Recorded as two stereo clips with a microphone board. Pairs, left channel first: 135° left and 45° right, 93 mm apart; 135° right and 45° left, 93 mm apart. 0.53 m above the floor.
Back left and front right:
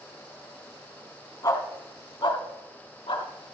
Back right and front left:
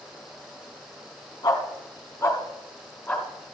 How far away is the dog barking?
About 1.9 m.